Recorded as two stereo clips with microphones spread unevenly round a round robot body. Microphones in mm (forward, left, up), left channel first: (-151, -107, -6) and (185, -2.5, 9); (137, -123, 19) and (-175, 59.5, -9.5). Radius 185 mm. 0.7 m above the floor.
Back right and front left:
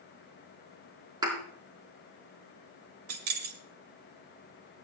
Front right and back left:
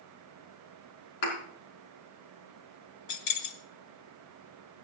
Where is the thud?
60° right, 4 m.